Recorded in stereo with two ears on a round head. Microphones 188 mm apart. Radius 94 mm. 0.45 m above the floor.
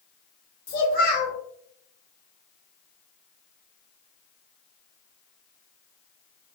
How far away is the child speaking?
About 1.2 m.